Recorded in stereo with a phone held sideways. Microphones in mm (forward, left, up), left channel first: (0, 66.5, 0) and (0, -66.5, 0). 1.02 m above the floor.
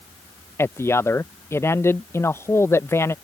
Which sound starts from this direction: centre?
A man speaking, at 0.6 s.